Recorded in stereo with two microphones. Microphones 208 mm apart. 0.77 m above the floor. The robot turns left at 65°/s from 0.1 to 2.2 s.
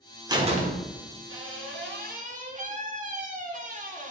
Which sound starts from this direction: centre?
A door slam, at 0.3 s.